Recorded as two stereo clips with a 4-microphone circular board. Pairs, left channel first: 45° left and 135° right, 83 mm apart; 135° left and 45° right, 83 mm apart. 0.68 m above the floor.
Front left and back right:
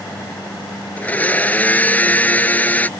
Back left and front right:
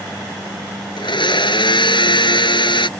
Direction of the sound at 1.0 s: 115° left.